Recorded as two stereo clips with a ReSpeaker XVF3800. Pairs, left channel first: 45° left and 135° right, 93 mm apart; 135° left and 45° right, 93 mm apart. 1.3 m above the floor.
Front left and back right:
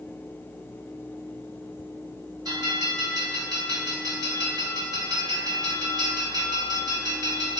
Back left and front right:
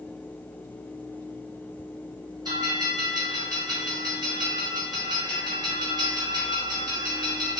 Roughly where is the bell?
Right.